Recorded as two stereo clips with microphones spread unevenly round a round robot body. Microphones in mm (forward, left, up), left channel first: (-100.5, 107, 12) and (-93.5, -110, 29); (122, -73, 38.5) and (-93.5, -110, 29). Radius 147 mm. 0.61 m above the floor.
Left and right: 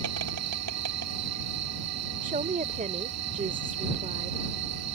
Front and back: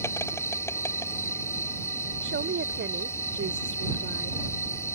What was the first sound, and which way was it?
An insect, 70° right.